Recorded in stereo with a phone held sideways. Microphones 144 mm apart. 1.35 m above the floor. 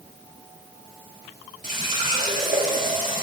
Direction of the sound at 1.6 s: 65° right (ahead or behind).